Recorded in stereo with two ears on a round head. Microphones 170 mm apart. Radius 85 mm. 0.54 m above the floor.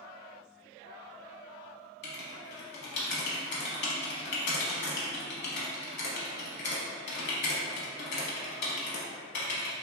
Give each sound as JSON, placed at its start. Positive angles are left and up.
{"t": 2.0, "sound": "writing", "side_deg": 60, "distance_m": 0.7}